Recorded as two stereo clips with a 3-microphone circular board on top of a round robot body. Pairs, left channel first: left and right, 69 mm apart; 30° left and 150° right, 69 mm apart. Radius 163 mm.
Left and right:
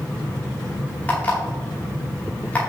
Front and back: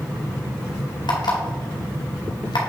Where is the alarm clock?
20° left, 2.0 m.